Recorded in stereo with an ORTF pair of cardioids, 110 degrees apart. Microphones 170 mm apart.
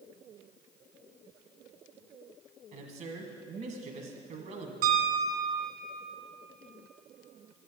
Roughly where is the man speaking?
Ahead right.